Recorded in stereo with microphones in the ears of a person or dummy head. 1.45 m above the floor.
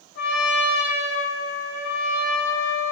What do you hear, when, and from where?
0.1 s a trumpet: 55° left (ahead or behind), 1.7 m